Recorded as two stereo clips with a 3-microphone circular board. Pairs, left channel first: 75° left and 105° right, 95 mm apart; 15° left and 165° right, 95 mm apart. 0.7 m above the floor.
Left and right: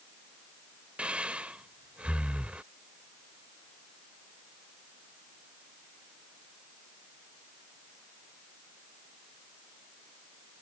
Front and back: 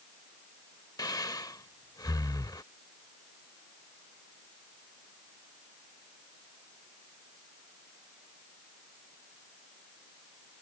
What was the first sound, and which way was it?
Breathing, 30° right.